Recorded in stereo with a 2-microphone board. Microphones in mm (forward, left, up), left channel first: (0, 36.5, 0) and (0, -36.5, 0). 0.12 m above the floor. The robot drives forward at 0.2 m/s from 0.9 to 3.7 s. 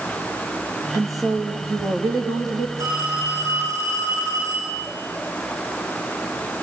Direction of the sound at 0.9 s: 55° right (ahead or behind).